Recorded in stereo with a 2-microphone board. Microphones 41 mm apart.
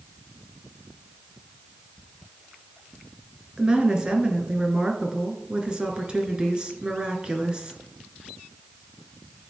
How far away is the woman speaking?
About 1.1 m.